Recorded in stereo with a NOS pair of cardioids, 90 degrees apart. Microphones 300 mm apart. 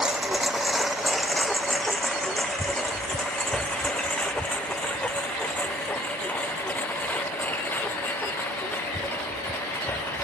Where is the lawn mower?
Straight ahead; by 10.2 s 5° left.